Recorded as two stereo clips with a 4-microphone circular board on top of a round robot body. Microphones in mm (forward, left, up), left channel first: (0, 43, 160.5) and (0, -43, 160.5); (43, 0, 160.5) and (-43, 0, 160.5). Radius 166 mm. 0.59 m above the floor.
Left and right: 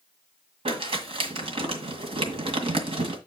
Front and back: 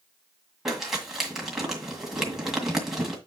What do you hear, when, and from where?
0.7 s crumpling: 95° right, 1.9 m